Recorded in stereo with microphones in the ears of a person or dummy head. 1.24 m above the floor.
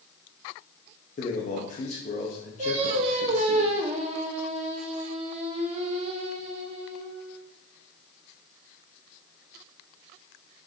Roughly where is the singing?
Right.